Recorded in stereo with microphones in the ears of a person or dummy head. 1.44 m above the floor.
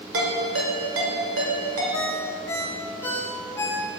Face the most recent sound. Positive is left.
turn(degrees=10)  # may be behind; listen again after turning